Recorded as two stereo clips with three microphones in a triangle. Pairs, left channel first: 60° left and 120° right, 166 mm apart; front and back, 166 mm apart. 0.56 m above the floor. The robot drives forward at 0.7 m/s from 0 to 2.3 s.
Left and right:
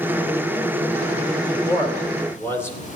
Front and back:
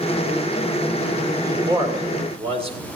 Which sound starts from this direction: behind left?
A man speaking, at 1.4 s.